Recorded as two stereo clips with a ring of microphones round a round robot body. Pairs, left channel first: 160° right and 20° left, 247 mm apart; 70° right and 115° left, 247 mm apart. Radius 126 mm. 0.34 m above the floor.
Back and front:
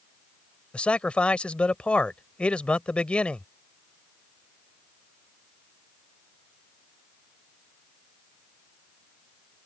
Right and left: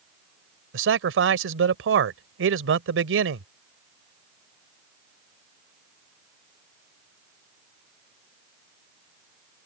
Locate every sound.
0.7 s a man speaking: 120° left